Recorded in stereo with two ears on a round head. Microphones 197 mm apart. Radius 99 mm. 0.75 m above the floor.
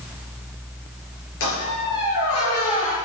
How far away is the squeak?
About 6 m.